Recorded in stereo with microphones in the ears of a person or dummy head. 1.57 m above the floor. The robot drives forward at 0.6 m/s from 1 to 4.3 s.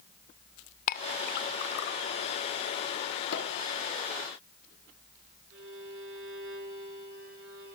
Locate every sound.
0.9 s a clink: 45° left (ahead or behind), 0.8 m; by 2.0 s 55° left (ahead or behind), 0.7 m
3.3 s a pop: 70° left (ahead or behind), 5 m
5.5 s a violin: 75° right (ahead or behind), 8 m